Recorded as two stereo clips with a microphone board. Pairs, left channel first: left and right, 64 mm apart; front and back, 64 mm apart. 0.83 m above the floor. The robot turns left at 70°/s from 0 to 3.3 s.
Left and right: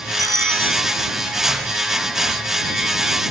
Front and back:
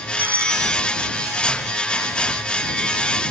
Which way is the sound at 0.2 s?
115° right.